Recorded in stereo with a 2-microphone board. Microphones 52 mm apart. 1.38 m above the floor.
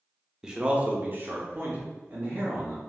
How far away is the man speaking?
About 0.5 m.